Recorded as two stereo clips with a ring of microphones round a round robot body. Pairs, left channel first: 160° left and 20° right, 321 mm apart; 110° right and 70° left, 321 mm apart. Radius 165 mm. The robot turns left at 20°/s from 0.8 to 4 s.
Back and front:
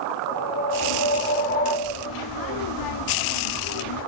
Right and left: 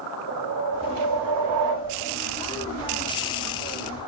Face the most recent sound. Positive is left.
turn(degrees=40)